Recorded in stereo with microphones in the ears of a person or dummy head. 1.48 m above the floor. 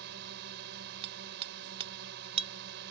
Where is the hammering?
35° right (ahead or behind).